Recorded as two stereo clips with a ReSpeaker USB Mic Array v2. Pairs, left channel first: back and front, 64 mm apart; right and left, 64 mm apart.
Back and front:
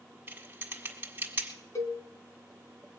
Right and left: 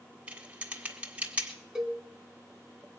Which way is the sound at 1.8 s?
170° left.